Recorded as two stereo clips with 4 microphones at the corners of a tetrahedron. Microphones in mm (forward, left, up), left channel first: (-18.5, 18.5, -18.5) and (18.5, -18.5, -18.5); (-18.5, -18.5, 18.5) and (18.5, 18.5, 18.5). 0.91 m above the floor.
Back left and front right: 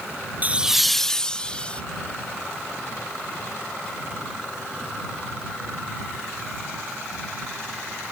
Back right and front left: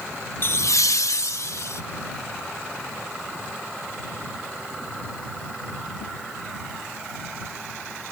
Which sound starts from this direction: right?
Laughter, at 0.4 s.